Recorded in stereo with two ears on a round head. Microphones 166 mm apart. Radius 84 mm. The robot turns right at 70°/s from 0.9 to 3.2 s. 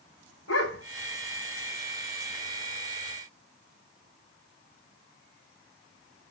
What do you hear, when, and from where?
0.5 s a dog barking: 75° left (ahead or behind), 3 m